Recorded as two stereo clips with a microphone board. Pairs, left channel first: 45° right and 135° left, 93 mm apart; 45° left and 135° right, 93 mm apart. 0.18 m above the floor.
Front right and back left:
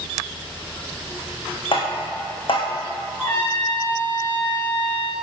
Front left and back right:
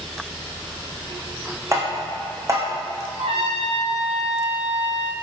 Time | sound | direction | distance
1.7 | tapping | 75° right | 3 m
3.2 | a trumpet | 120° right | 3 m